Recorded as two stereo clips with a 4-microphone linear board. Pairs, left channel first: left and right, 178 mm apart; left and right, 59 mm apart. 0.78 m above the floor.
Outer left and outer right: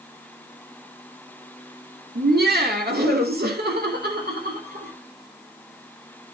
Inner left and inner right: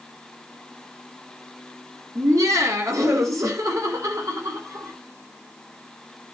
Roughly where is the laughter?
Right.